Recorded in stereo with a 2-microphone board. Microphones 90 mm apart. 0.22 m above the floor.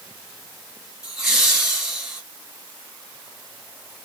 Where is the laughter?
5° right (ahead or behind), 1.8 m.